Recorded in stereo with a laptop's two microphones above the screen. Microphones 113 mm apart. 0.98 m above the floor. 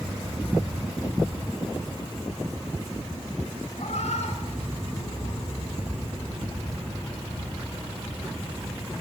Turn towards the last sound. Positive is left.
turn(degrees=65)  # may be behind; listen again after turning